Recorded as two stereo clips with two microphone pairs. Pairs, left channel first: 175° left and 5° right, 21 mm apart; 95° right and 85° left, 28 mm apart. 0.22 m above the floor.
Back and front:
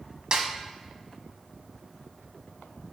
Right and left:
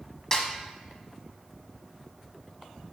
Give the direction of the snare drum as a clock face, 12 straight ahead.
1 o'clock.